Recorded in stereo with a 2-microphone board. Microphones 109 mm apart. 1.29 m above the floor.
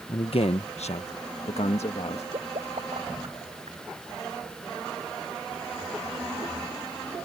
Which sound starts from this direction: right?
A pop, at 2.3 s.